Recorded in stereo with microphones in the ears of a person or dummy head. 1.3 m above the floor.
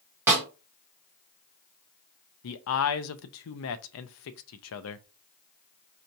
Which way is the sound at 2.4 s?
70° left (ahead or behind).